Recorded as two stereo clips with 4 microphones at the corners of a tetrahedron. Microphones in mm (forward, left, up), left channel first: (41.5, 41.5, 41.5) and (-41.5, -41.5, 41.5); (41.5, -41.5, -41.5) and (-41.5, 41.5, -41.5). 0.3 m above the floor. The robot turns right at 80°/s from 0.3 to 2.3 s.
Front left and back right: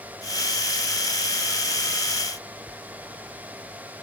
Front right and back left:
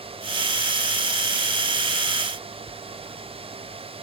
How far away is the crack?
I don't hear a crack.